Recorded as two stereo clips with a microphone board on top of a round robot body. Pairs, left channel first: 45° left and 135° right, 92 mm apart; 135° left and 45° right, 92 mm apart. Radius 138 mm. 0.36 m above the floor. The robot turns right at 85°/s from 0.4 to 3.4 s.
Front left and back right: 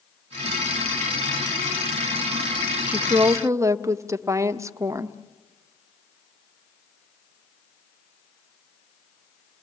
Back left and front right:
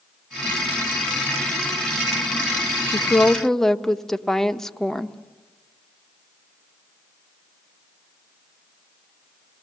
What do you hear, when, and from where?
2.9 s a woman speaking: 175° left, 1.1 m; by 5.2 s 145° right, 1.1 m